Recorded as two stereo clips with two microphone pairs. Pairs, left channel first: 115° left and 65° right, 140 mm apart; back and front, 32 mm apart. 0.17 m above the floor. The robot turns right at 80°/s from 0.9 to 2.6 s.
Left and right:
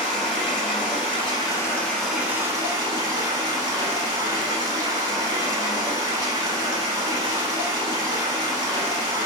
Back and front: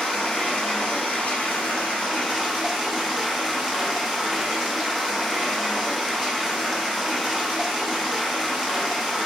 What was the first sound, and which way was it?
Running water, 120° left.